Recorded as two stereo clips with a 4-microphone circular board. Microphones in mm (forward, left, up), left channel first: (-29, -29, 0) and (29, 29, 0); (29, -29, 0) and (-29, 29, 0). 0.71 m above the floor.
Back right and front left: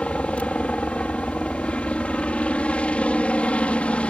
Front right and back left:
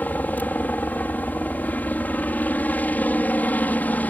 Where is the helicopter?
80° right.